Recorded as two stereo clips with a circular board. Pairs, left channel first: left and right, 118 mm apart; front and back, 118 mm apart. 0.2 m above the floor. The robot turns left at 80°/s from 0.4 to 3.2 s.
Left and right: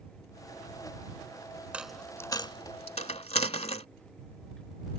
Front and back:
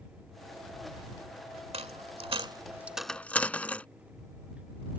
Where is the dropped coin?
165° right; by 3.9 s 75° left.